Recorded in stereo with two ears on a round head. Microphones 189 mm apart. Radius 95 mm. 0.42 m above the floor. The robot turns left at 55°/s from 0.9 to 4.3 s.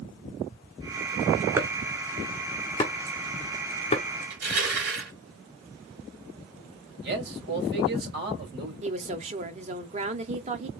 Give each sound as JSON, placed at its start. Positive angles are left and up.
{"t": 1.6, "sound": "chopping", "side_deg": -15, "distance_m": 1.5}
{"t": 4.3, "sound": "crushing", "side_deg": -55, "distance_m": 3.0}
{"t": 7.0, "sound": "a man speaking", "side_deg": -55, "distance_m": 2.5}
{"t": 8.8, "sound": "a woman speaking", "side_deg": -30, "distance_m": 0.9}